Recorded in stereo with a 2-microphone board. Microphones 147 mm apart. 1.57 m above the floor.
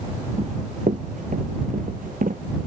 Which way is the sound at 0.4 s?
55° right (ahead or behind).